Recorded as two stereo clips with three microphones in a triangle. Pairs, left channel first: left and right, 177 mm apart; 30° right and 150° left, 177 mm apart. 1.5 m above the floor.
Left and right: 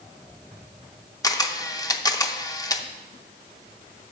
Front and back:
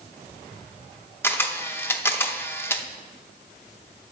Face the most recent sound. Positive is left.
turn(degrees=35)